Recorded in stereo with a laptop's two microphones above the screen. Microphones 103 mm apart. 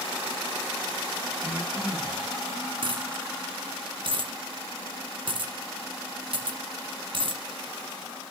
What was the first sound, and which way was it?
Breathing, 30° right (ahead or behind).